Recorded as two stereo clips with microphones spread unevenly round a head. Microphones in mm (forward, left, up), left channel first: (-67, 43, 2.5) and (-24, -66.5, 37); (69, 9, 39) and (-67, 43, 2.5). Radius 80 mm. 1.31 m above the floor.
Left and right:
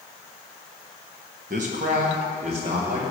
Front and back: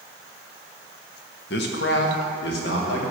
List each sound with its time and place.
1.5 s a man speaking: 30° right, 1.1 m; by 3.1 s 15° right, 2.5 m